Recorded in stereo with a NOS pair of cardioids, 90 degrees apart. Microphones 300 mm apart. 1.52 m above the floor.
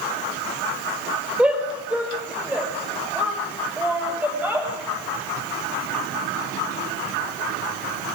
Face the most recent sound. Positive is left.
turn(degrees=-5)